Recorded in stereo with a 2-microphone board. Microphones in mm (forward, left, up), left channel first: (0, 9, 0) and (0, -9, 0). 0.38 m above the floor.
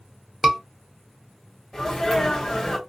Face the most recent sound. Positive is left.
turn(degrees=35)  # may be behind; listen again after turning